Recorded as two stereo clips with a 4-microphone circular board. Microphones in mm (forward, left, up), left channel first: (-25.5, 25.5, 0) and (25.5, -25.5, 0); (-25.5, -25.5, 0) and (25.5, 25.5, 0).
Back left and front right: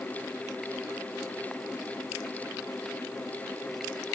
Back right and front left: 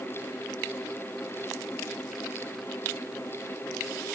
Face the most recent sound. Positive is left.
No sound to turn to.